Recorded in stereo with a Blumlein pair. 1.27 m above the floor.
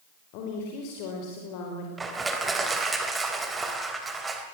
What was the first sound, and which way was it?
A woman speaking, 45° left.